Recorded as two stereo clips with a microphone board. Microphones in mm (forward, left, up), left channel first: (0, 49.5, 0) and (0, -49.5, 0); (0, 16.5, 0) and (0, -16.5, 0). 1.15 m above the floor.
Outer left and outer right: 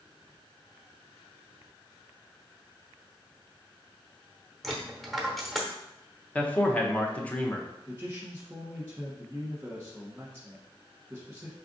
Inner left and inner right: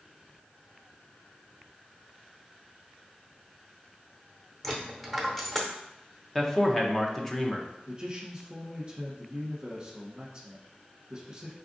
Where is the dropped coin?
Centre (ahead or behind), 0.9 m.